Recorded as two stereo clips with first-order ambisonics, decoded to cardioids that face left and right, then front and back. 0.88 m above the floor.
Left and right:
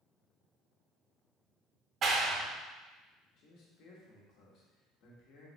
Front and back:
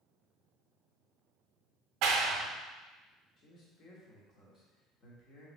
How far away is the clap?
About 0.7 m.